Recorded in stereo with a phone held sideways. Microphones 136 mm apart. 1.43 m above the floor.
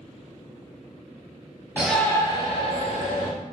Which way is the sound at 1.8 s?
10° right (ahead or behind).